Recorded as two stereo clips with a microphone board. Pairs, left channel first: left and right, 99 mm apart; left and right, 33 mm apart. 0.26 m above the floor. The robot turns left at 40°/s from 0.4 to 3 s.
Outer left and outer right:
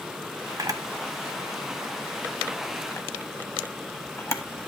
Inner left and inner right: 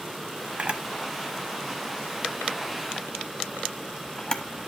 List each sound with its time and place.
0.6 s a camera shutter: 40° right (ahead or behind), 0.9 m; by 4.4 s 25° left (ahead or behind), 0.9 m